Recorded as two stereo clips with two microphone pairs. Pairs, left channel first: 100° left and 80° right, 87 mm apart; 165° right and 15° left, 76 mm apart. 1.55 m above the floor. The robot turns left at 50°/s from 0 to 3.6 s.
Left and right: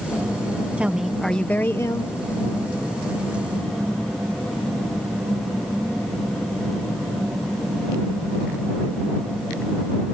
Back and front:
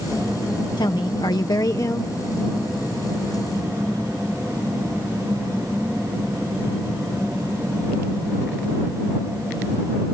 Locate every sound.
0.8 s a woman speaking: 155° right; by 2.1 s 140° left